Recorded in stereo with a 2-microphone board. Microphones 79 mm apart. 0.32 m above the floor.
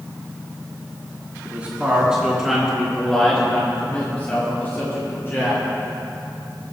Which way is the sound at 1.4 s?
20° right (ahead or behind).